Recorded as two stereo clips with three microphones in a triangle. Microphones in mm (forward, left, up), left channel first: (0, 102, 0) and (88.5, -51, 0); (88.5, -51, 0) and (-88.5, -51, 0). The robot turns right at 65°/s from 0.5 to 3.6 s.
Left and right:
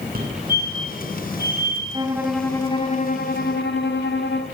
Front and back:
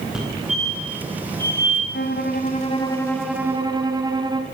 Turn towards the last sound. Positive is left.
turn(degrees=115)